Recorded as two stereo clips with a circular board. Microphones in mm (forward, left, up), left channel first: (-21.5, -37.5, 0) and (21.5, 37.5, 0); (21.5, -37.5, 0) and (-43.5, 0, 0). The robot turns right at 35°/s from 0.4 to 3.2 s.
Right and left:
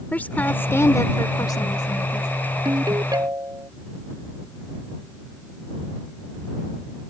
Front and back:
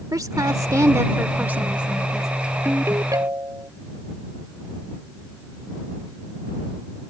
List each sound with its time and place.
0.1 s a woman speaking: 175° left; by 2.3 s 120° right
2.6 s a ringtone: 90° left; by 3.7 s 105° left